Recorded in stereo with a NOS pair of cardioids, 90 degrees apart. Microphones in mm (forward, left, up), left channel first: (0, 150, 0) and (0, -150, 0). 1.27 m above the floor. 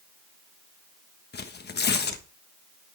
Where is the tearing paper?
35° left, 1.4 m.